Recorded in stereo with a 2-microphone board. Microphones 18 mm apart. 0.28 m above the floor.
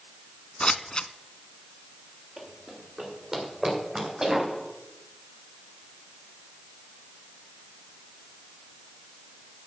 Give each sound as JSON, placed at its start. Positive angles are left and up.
{"t": 0.6, "sound": "scissors", "side_deg": 60, "distance_m": 0.6}
{"t": 2.4, "sound": "running footsteps", "side_deg": -10, "distance_m": 6.0}